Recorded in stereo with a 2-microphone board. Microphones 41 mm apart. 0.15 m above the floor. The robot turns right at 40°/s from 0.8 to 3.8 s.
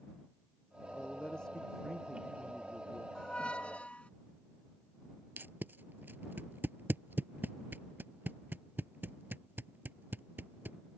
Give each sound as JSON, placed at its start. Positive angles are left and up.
{"t": 0.9, "sound": "a man speaking", "azimuth_deg": 140}
{"t": 3.1, "sound": "a squeak", "side_deg": 20}
{"t": 5.4, "sound": "tape being pulled", "side_deg": -55}